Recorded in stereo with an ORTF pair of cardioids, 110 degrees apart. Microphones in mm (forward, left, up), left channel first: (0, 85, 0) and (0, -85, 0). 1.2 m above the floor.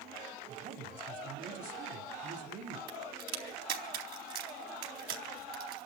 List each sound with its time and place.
0.5 s a woman speaking: 55° right, 4 m
2.9 s a crack: 70° right, 4 m